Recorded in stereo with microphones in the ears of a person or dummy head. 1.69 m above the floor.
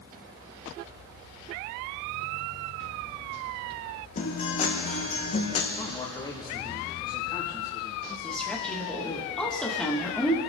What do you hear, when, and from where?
4.2 s a guitar: 40° left (ahead or behind), 1.4 m
5.8 s a man speaking: 25° left (ahead or behind), 1.8 m
8.2 s a woman speaking: 5° left (ahead or behind), 2 m